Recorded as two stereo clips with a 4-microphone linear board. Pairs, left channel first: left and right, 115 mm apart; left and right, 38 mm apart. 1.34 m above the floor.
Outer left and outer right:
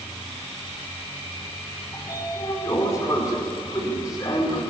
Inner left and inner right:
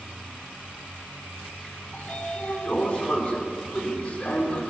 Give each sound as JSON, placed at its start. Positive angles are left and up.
{"t": 1.9, "sound": "a sliding door", "side_deg": 35, "distance_m": 5.0}